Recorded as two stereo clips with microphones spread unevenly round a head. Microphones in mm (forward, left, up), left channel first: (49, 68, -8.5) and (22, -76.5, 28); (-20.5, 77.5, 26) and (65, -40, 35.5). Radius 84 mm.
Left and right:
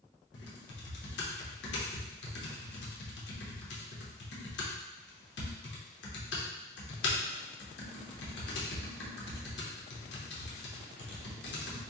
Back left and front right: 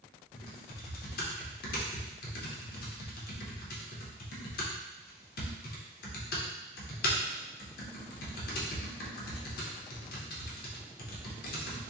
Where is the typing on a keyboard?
110° left, 0.7 m.